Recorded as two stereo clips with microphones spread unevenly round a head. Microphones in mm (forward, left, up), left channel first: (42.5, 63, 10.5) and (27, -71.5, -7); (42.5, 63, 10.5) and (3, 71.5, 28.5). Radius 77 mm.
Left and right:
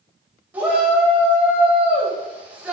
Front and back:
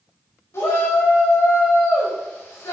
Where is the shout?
20° right, 5 m.